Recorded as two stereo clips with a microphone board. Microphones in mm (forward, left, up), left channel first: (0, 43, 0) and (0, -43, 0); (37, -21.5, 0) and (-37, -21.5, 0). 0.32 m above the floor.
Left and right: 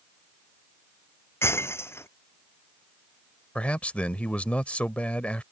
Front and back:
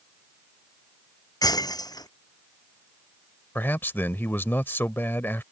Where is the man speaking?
30° left.